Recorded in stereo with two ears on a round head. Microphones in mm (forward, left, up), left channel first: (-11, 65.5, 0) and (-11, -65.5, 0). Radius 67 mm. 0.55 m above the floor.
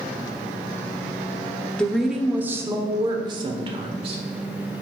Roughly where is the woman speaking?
Centre.